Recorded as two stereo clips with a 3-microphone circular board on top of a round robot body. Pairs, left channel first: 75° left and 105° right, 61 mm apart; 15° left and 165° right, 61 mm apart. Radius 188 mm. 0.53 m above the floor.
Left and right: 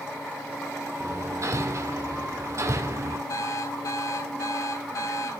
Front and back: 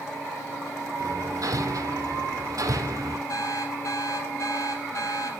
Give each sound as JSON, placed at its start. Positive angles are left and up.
{"t": 1.0, "sound": "hammering", "azimuth_deg": -145, "distance_m": 1.6}
{"t": 3.3, "sound": "an alarm clock", "azimuth_deg": 50, "distance_m": 4.0}